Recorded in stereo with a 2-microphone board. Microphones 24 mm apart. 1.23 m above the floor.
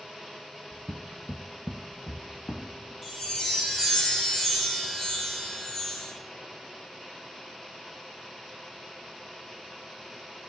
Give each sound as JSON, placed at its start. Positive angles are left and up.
{"t": 0.7, "sound": "footsteps", "side_deg": -20, "distance_m": 1.3}
{"t": 3.0, "sound": "a chime", "side_deg": 10, "distance_m": 3.0}